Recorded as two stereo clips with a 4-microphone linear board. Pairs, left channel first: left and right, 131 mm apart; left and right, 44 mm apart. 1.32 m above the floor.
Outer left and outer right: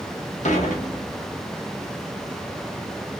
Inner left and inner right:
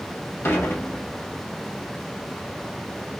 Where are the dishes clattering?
65° left (ahead or behind), 0.9 m.